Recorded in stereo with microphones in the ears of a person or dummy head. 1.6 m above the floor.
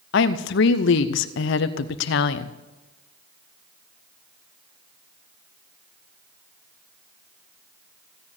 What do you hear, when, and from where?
0.1 s a woman speaking: 65° left (ahead or behind), 0.8 m